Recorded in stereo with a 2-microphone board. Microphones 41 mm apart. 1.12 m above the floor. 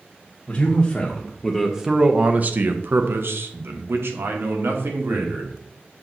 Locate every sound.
0.5 s a man speaking: 30° left (ahead or behind), 1.0 m; by 5.5 s 80° right, 1.9 m